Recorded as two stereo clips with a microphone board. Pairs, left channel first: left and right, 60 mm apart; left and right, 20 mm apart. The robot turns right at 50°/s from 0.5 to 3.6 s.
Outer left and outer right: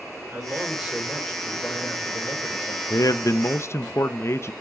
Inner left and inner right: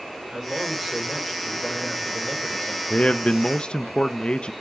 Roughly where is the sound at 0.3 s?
Ahead right.